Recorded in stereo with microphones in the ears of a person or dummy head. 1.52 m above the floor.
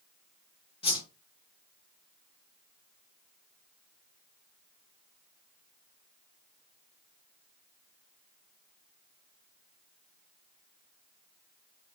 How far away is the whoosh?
About 0.9 m.